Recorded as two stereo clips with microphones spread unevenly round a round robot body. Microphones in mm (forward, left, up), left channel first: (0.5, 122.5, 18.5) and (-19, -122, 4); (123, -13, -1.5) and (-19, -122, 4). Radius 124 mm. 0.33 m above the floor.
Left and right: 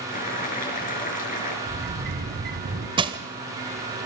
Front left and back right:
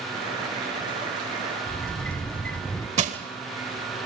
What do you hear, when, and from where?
0.1 s boiling: 145° left, 5 m
1.7 s a sliding door: 45° right, 1.9 m
3.0 s crushing: 145° right, 1.5 m